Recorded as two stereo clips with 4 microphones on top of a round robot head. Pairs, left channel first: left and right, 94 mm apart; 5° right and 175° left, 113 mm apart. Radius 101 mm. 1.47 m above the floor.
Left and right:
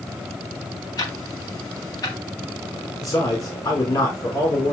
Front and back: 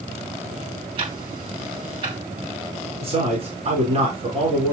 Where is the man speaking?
145° left, 5 m.